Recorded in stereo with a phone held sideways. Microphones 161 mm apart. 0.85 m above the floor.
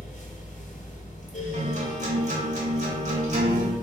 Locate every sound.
0.0 s a fan: 50° left (ahead or behind), 0.8 m
1.5 s a guitar: 45° right (ahead or behind), 0.9 m